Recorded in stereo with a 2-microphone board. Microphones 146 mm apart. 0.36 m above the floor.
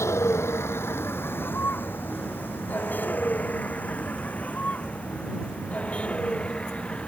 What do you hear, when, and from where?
0.0 s a vehicle: 20° left (ahead or behind); by 7.1 s 5° left (ahead or behind)